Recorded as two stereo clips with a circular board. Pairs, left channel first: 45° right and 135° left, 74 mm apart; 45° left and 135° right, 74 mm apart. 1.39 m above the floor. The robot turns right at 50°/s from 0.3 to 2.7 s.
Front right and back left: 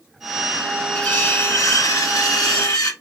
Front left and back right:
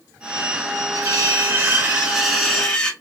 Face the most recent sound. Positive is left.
turn(degrees=-25)